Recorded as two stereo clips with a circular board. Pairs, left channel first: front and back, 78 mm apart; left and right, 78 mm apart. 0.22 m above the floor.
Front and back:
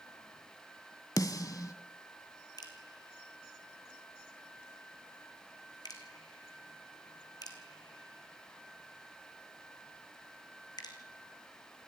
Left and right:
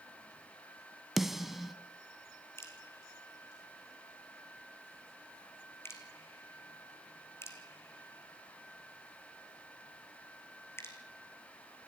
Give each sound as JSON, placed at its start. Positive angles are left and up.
{"t": 1.2, "sound": "a snare drum", "azimuth_deg": -5, "distance_m": 1.2}
{"t": 2.6, "sound": "dripping", "azimuth_deg": 35, "distance_m": 3.0}